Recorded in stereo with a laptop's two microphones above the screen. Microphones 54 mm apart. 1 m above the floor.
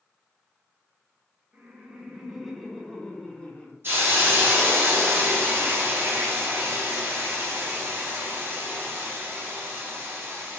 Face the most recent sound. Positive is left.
turn(degrees=-45)  # may be behind; listen again after turning